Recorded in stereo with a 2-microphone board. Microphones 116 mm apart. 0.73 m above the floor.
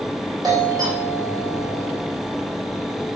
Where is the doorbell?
35° right (ahead or behind), 4 m.